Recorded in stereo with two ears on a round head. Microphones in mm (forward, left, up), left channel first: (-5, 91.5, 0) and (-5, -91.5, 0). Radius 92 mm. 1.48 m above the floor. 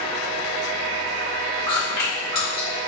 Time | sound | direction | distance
1.7 | chewing | 25° left (ahead or behind) | 1.9 m